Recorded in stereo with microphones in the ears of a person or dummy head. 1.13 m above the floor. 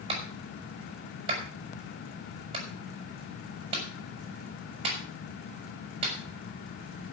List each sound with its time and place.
0.1 s a clap: 30° right (ahead or behind), 5 m